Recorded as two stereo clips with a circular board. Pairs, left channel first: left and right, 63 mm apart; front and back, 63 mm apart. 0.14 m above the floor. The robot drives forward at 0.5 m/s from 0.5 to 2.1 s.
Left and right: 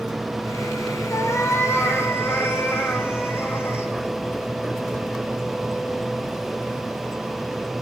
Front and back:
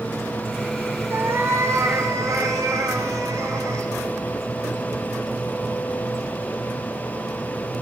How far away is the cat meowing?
About 1.3 m.